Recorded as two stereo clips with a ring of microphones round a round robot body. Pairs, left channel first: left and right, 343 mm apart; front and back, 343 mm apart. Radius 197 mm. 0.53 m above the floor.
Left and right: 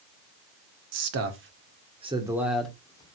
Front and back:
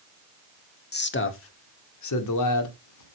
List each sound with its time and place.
0.9 s a man speaking: 55° right, 2 m; by 3.2 s 15° left, 2.5 m